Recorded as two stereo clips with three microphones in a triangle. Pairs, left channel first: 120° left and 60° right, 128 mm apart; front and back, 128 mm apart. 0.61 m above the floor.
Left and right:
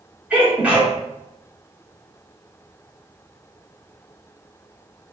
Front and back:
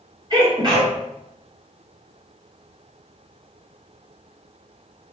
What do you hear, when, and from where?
0.3 s a sneeze: 135° right, 1.9 m